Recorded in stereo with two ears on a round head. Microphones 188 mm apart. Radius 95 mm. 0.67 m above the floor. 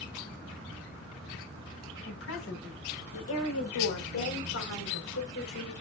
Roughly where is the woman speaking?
Left.